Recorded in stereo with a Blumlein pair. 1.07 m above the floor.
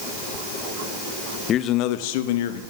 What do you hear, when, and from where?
1.5 s a man speaking: 25° left, 0.6 m; by 2.6 s 55° left, 1.1 m